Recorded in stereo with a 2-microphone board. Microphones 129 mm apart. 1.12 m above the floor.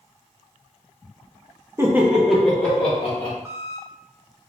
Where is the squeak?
20° right (ahead or behind), 0.7 m.